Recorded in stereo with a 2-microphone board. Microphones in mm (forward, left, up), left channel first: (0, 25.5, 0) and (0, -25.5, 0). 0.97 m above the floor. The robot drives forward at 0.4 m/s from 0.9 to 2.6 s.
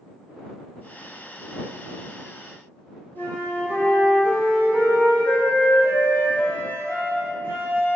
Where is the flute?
35° left (ahead or behind), 1.4 m.